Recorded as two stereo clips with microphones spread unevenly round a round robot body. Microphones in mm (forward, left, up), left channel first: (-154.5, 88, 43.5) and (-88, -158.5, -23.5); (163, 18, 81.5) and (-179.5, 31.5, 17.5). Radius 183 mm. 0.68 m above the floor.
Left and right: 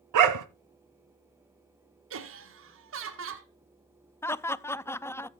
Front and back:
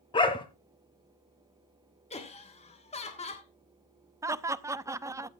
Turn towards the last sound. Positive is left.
turn(degrees=-150)